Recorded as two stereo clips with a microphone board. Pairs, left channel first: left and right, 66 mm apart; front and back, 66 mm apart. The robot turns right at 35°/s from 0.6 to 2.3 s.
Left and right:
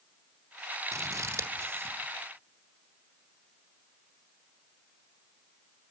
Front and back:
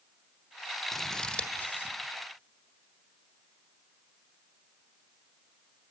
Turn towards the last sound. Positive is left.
turn(degrees=-35)